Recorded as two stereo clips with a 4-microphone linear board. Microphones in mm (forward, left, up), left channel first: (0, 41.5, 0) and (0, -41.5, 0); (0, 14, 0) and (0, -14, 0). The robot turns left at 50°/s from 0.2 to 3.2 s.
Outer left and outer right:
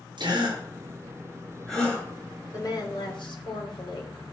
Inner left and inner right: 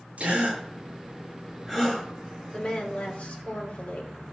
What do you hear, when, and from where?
0.2 s a gasp: 70° right (ahead or behind), 7 m; by 2.0 s 25° left (ahead or behind), 7 m
2.5 s a woman speaking: 130° left, 2.5 m; by 4.1 s 100° left, 2.5 m